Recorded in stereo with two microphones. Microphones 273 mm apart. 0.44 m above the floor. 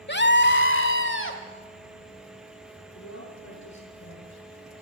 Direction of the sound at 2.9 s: 80° left.